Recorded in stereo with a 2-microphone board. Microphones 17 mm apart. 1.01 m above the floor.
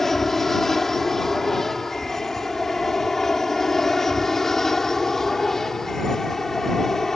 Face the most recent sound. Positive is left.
turn(degrees=20)  # may be behind; listen again after turning